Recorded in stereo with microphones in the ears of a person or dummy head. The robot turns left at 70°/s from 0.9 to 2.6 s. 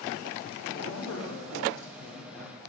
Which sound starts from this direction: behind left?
A man speaking, at 0.7 s.